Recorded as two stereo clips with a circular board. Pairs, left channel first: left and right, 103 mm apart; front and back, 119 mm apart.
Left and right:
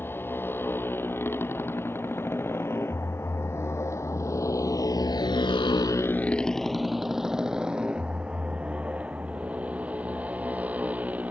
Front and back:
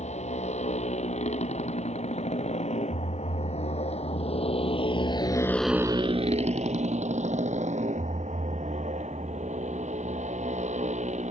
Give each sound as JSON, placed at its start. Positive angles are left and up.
{"t": 0.0, "sound": "a motorcycle", "azimuth_deg": 20}